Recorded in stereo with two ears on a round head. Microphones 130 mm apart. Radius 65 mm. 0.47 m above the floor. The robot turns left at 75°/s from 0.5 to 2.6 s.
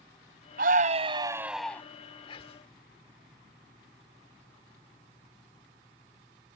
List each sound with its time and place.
0.6 s a scream: 105° right; by 1.8 s 165° left
2.3 s whispering: 35° left (ahead or behind); by 2.7 s 40° left (ahead or behind)